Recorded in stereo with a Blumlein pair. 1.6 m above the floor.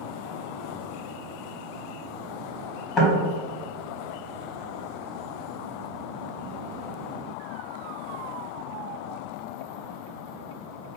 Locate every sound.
3.0 s knocking: 30° left, 1.4 m